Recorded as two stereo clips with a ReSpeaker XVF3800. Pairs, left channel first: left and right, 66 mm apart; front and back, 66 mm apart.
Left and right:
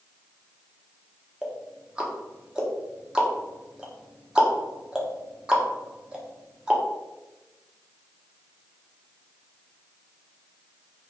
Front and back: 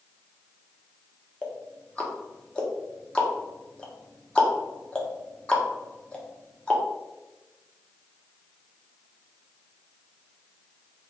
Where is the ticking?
40° right, 0.8 m.